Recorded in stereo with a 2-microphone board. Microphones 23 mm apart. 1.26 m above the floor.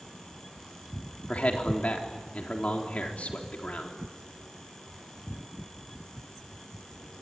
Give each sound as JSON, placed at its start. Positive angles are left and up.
{"t": 1.3, "sound": "a man speaking", "side_deg": 65, "distance_m": 4.0}